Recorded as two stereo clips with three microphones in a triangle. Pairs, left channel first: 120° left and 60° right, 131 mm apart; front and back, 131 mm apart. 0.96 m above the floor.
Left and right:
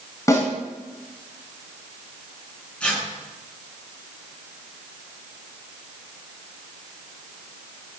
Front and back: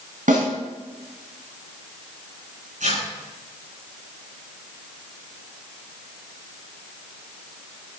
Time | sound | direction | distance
0.3 | a snare drum | 175° right | 7.5 m
2.8 | tearing paper | 160° right | 9.5 m